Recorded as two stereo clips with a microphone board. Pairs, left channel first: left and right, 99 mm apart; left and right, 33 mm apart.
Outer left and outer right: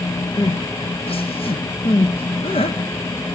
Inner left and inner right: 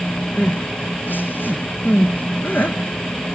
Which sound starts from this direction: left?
Crying, at 0.4 s.